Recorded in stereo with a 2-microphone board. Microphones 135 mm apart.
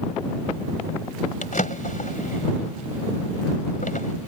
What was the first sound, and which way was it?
A drawer, 70° left (ahead or behind).